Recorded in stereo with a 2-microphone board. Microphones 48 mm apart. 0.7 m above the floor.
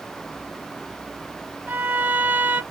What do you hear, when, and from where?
1.7 s a violin: 45° right (ahead or behind), 1.2 m